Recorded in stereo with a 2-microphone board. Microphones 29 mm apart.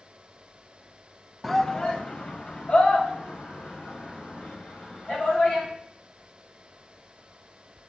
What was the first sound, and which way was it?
A shout, 5° left (ahead or behind).